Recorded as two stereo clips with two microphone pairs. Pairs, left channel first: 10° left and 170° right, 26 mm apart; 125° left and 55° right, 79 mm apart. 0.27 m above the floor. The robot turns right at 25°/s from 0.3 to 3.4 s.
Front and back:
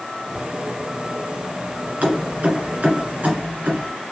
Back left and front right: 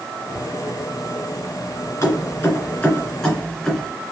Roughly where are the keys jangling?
Behind.